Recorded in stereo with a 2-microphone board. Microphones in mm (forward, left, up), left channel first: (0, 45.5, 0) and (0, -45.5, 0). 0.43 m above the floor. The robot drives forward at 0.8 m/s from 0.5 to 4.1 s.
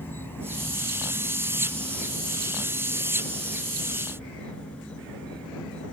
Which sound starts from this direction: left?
An insect, at 0.0 s.